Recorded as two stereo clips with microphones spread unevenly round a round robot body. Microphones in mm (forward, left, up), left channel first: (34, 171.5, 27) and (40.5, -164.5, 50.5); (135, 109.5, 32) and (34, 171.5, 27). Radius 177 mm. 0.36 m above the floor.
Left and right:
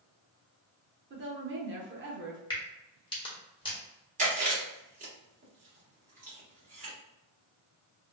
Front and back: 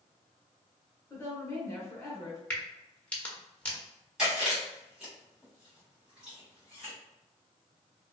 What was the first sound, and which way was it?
A woman speaking, 75° right.